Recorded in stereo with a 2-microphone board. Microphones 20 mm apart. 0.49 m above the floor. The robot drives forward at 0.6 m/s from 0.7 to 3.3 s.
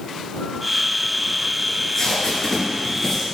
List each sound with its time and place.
1.7 s tape being pulled: 35° left (ahead or behind), 2.5 m; by 3.2 s 25° left (ahead or behind), 3.5 m